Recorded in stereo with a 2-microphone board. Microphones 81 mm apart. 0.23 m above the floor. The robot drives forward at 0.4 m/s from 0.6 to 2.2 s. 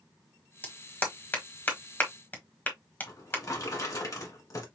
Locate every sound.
0.6 s a clap: 20° left (ahead or behind), 1.3 m
3.1 s a drawer: 45° left (ahead or behind), 1.4 m